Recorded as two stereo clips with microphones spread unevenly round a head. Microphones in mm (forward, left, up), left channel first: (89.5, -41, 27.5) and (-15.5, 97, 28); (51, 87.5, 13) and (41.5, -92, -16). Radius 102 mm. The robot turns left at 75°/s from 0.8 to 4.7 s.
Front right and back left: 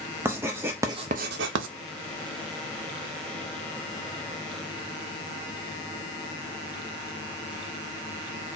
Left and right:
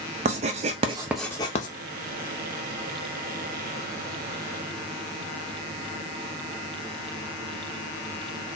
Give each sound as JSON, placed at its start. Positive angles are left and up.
{"t": 0.2, "sound": "writing", "azimuth_deg": -155, "distance_m": 0.5}